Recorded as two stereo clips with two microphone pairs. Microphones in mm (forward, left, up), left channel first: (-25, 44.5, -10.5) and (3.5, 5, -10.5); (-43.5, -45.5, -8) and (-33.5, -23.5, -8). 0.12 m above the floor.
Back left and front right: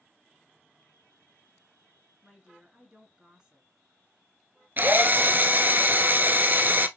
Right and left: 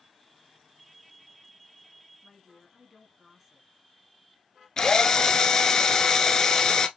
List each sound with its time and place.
2.2 s a woman speaking: 15° right, 1.3 m
4.8 s a drill: 80° right, 0.6 m